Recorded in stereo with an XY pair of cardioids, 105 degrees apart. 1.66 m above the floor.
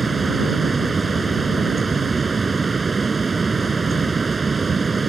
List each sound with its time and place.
0.0 s a fan: 25° right